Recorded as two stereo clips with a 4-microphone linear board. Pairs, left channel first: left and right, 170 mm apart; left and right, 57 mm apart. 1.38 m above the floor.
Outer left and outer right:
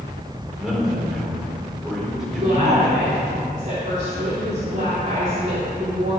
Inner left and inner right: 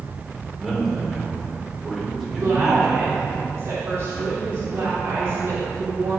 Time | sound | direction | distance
0.6 | a man speaking | centre (ahead or behind) | 5 m
2.3 | a woman speaking | 45° right (ahead or behind) | 3.5 m